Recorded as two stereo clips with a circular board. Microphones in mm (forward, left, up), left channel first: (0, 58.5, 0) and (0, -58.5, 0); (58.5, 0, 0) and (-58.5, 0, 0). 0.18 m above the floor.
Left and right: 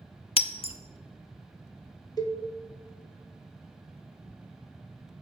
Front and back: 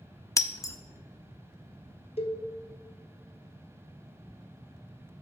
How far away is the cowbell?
About 0.9 m.